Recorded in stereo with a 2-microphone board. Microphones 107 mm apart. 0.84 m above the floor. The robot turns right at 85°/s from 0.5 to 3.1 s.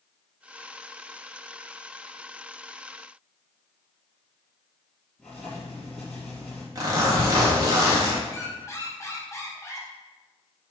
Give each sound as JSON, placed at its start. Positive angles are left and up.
{"t": 5.2, "sound": "writing", "side_deg": 10, "distance_m": 3.0}
{"t": 6.8, "sound": "a zipper", "side_deg": -35, "distance_m": 1.5}
{"t": 8.3, "sound": "a squeak", "side_deg": 30, "distance_m": 1.8}